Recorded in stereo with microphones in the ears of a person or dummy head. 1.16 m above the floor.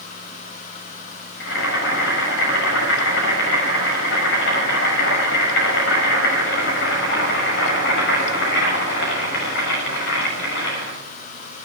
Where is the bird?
No bird in this recording.